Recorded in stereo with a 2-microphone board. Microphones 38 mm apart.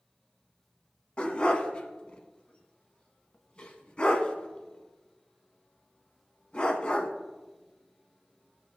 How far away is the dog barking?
About 0.8 m.